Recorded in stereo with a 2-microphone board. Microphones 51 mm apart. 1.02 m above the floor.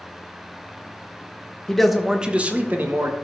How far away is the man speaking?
About 0.9 m.